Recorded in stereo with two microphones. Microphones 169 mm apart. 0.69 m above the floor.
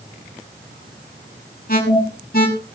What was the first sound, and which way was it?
An alarm, 60° left (ahead or behind).